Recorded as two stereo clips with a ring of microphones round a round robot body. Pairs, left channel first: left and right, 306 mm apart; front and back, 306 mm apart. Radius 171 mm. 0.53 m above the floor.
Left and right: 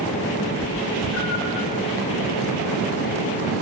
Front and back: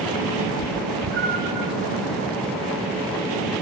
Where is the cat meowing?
165° left, 1.6 m; by 1.7 s 100° left, 1.4 m.